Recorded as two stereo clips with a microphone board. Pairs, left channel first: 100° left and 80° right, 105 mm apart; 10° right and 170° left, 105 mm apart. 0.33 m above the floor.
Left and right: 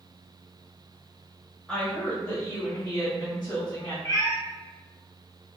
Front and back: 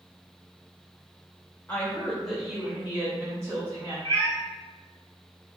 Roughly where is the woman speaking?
Ahead left.